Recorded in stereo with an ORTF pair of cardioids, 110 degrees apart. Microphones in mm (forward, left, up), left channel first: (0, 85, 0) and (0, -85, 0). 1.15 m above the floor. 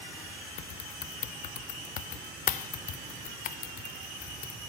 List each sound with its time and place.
0.6 s typing on a keyboard: 55° left, 0.6 m